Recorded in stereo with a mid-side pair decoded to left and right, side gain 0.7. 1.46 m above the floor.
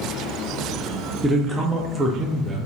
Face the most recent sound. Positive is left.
turn(degrees=-10)